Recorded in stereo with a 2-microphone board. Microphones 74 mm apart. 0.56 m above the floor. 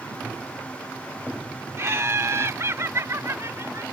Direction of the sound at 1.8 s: 40° right (ahead or behind).